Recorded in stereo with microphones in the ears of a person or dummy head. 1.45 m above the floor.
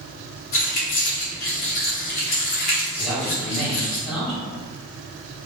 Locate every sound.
0.5 s keys jangling: 50° left (ahead or behind), 1.1 m
3.0 s a man speaking: 5° left (ahead or behind), 1.6 m